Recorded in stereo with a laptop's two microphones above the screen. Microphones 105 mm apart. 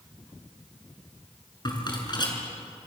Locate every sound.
1.6 s a rattle: 45° left (ahead or behind), 6 m